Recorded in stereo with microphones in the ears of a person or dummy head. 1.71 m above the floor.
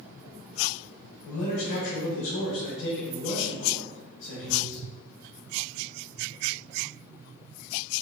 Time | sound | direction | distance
1.2 | a man speaking | 75° left (ahead or behind) | 1.0 m